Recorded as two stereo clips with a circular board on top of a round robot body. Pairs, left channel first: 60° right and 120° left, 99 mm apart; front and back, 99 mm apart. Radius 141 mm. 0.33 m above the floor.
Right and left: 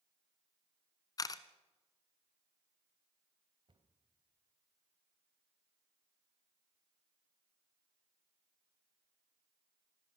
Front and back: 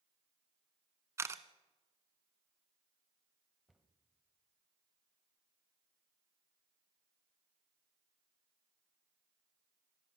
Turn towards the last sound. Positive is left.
turn(degrees=90)